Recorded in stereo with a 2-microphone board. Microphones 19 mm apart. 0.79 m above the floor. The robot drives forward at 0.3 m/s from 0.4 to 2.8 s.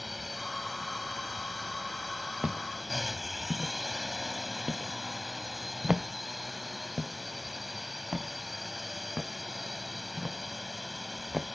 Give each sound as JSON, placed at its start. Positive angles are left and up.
{"t": 0.0, "sound": "a drone", "side_deg": -10}
{"t": 2.4, "sound": "footsteps", "side_deg": -60}